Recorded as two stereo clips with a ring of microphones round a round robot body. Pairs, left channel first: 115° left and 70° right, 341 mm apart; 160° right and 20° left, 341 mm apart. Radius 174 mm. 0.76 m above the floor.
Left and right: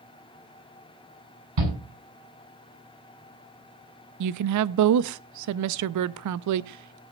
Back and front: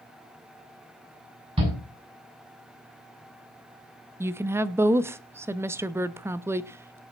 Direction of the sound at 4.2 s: 60° right.